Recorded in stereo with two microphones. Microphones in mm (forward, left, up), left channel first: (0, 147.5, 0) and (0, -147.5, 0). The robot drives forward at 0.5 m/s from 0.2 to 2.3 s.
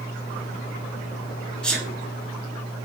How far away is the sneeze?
About 1.6 m.